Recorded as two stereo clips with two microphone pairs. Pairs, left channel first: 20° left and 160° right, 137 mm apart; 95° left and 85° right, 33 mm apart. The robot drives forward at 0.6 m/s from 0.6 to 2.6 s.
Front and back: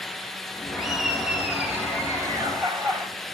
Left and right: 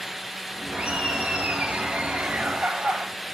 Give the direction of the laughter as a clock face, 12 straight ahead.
2 o'clock.